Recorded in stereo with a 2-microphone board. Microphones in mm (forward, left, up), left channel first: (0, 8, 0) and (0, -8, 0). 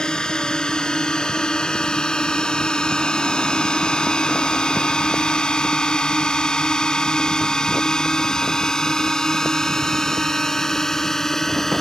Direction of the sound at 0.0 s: 60° left (ahead or behind).